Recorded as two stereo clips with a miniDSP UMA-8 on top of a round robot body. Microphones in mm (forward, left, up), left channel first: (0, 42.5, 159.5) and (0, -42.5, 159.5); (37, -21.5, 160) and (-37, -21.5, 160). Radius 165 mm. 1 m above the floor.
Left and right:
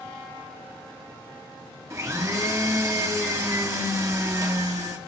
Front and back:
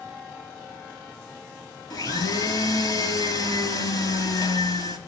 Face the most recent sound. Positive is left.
turn(degrees=-35)